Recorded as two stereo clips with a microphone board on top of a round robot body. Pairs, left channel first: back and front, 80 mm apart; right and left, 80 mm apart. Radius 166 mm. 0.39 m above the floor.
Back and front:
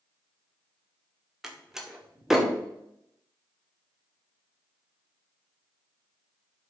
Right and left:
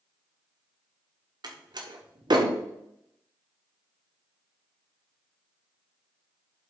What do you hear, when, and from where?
1.4 s a door slam: 85° left, 1.5 m